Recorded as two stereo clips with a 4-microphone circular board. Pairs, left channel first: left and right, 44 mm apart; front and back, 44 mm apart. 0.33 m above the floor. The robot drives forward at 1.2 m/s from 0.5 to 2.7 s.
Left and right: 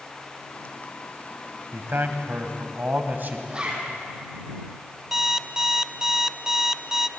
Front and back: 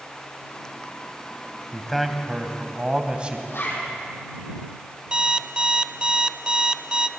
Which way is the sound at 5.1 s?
155° right.